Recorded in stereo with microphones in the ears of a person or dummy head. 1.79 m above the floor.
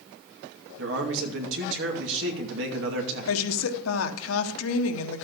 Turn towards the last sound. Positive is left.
turn(degrees=85)